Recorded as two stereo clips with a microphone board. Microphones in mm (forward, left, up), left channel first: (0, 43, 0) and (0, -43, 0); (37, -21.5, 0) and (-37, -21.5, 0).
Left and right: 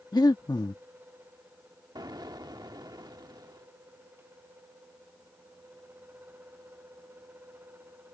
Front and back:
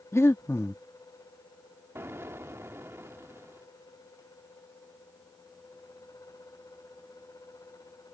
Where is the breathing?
50° left.